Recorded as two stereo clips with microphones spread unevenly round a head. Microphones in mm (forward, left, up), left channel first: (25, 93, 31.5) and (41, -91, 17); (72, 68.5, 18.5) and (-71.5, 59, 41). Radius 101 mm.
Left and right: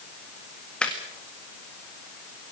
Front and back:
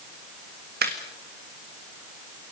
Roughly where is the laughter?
Behind.